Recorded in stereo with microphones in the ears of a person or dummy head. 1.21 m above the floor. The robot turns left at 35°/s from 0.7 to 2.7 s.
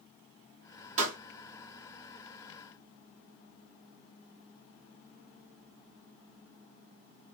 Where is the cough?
No cough in this recording.